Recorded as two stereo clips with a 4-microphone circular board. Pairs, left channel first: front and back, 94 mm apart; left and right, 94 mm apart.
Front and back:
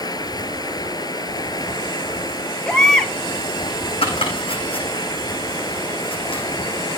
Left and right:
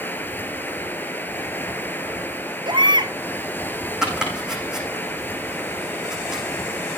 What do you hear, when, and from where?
0.0 s running water: 25° left, 1.6 m
2.6 s a baby crying: 80° right, 2.0 m
4.0 s chopping: 5° right, 7 m